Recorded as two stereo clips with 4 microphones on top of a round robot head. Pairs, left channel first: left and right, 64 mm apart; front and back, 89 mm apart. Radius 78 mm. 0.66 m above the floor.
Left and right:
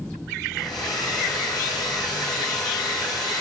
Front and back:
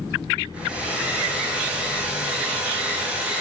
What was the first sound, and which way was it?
A hair dryer, 100° left.